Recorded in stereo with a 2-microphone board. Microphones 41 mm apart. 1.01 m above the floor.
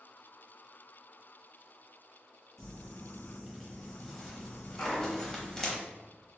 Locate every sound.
2.6 s crumpling: 15° left (ahead or behind), 0.7 m
4.8 s a clunk: 60° left (ahead or behind), 0.8 m